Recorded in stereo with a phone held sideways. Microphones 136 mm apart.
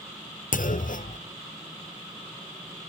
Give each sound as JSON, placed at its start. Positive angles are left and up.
{"t": 0.5, "sound": "a clunk", "side_deg": 85, "distance_m": 0.6}